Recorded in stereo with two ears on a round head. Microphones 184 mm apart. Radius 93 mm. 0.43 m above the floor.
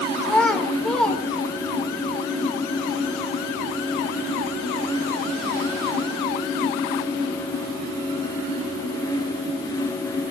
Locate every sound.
0.2 s a child speaking: 5° left (ahead or behind), 1.2 m